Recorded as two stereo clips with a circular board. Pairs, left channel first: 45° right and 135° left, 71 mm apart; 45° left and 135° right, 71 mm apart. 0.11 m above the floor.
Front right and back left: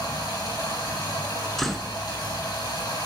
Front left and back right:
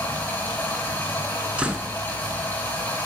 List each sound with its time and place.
0.0 s running water: 15° right, 5.5 m
1.6 s a door slam: 125° right, 1.0 m